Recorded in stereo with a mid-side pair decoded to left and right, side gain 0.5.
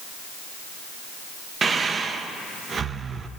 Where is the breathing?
40° right, 0.7 m.